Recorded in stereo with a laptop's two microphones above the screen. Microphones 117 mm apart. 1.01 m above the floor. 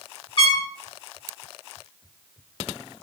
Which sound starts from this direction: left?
A trumpet, at 0.4 s.